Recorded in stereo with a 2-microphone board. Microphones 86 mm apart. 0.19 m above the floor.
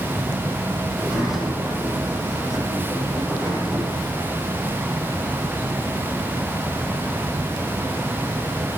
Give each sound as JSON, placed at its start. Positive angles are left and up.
{"t": 0.9, "sound": "a sliding door", "side_deg": -5, "distance_m": 6.5}